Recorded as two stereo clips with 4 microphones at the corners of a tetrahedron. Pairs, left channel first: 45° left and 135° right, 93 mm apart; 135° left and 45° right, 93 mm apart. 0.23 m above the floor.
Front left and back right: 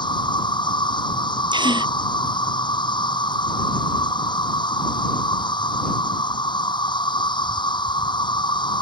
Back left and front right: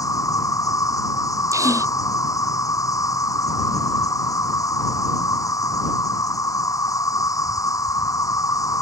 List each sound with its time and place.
0.0 s an insect: 80° left
1.5 s a gasp: 100° right